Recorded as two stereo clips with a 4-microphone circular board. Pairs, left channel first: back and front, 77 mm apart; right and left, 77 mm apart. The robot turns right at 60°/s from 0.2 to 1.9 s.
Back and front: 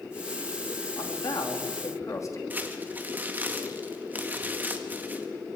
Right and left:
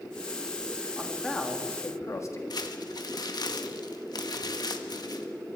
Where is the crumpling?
65° right, 1.8 m.